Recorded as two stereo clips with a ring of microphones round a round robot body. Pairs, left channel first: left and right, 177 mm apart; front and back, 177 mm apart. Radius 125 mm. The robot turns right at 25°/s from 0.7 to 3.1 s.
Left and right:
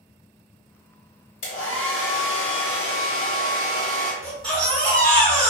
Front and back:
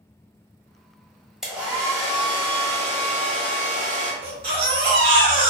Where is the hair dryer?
90° left, 1.3 m; by 4.1 s 135° left, 1.3 m.